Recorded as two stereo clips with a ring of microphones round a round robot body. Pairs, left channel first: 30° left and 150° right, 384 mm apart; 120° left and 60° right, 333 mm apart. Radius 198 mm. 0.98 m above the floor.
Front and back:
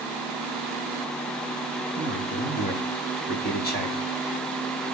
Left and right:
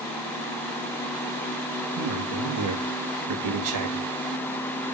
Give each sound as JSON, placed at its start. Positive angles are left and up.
{"t": 1.9, "sound": "a man speaking", "azimuth_deg": -35, "distance_m": 2.0}